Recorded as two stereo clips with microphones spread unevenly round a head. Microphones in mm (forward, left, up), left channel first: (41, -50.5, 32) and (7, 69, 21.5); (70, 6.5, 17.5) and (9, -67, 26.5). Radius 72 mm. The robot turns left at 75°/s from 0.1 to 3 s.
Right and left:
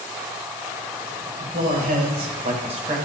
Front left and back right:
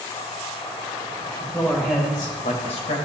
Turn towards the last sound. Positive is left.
turn(degrees=50)